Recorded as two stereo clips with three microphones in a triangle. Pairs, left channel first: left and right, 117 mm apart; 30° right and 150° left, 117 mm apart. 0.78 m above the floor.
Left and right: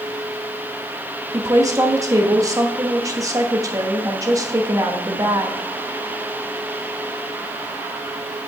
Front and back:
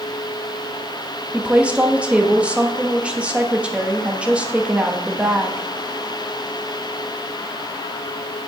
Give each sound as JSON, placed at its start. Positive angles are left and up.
{"t": 1.3, "sound": "a woman speaking", "azimuth_deg": -135, "distance_m": 1.3}